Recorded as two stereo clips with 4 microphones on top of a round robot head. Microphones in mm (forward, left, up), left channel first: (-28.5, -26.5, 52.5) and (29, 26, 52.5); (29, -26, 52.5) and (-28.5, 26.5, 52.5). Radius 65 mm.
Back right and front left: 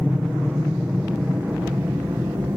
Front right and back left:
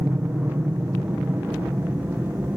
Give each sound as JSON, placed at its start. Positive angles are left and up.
{"t": 0.0, "sound": "an aircraft", "azimuth_deg": 120}